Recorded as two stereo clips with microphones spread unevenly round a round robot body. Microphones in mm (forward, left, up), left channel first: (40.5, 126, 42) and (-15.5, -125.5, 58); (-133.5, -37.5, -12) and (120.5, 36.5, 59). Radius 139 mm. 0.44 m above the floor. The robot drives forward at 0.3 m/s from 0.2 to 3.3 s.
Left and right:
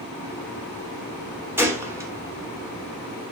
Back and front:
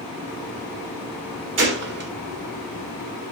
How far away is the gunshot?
About 1.2 m.